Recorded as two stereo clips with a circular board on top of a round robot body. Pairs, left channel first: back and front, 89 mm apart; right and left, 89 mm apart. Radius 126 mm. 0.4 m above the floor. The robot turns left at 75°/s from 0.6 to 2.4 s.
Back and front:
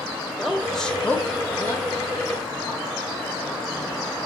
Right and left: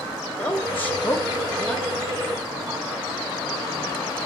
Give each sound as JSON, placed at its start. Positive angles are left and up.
{"t": 0.4, "sound": "a woman speaking", "azimuth_deg": -90, "distance_m": 0.8}